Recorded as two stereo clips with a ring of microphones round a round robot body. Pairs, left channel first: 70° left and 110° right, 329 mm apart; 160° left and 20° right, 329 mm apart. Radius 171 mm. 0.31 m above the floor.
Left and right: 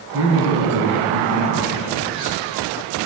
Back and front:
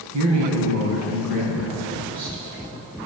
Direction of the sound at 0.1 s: 60° right.